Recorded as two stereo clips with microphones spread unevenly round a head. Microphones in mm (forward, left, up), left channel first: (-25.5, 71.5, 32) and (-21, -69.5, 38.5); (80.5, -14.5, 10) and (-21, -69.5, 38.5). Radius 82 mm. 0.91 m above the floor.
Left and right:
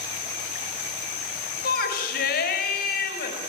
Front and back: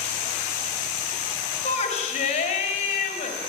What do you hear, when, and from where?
1.6 s a shout: 65° left, 5 m